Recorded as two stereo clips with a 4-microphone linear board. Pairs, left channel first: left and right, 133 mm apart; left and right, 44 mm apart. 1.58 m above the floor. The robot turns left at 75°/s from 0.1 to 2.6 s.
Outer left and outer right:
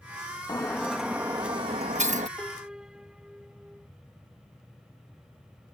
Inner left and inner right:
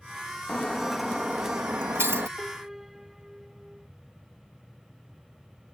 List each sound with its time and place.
0.5 s breaking glass: 35° left; by 2.3 s 100° right
2.4 s a piano: 10° left (ahead or behind); by 3.9 s 5° right (ahead or behind)